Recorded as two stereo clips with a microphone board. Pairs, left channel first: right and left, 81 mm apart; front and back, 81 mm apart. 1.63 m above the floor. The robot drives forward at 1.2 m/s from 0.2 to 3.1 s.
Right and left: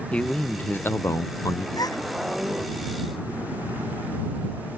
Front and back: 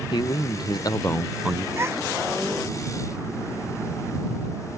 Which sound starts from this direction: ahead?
A man speaking, at 0.1 s.